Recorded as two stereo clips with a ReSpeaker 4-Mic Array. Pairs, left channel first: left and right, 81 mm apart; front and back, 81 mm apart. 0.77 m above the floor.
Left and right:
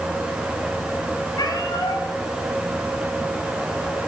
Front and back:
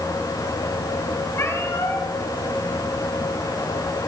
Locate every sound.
1.4 s a cat meowing: 55° left, 3.5 m